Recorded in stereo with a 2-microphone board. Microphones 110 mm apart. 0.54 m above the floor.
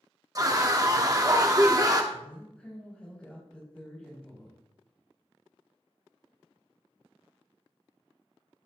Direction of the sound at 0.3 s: 30° right (ahead or behind).